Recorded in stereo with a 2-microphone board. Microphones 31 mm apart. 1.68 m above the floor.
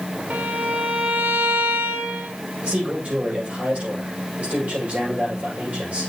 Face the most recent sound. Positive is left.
turn(degrees=-55)  # may be behind; listen again after turning